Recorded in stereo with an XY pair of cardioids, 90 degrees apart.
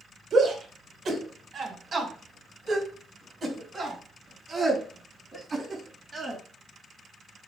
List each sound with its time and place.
0.3 s a shout: 60° right, 4.5 m; by 6.4 s 40° right, 8.5 m